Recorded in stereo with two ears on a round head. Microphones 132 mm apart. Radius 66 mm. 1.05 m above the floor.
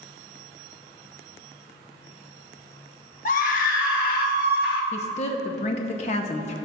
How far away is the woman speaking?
About 0.8 m.